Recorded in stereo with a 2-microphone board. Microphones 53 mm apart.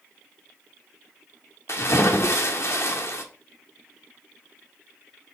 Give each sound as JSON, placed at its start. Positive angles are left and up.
{"t": 1.7, "sound": "a splash", "side_deg": 60, "distance_m": 1.7}